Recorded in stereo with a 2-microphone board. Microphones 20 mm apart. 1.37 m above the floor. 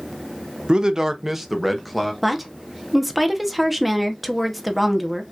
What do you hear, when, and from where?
0.7 s a man speaking: 45° right (ahead or behind), 0.6 m; by 2.1 s centre (ahead or behind), 1.4 m
2.2 s a woman speaking: 5° right (ahead or behind), 1.0 m